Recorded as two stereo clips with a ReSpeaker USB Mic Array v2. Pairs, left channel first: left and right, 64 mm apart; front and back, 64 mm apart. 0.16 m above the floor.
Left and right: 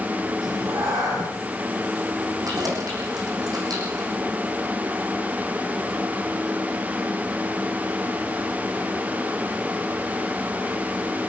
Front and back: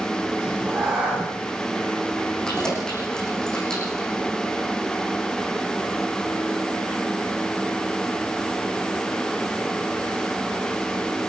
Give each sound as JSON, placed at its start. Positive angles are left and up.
{"t": 0.4, "sound": "a cat meowing", "azimuth_deg": -105, "distance_m": 9.5}
{"t": 2.5, "sound": "keys jangling", "azimuth_deg": -80, "distance_m": 7.5}